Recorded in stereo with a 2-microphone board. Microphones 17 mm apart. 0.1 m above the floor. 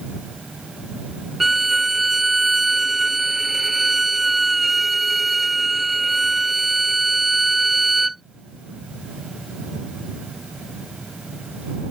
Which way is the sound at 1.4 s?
10° right (ahead or behind).